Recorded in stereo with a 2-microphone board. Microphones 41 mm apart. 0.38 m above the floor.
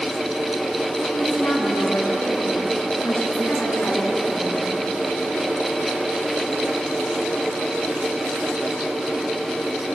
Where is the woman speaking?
70° left (ahead or behind), 4.5 m; by 4.8 s 80° left, 6 m.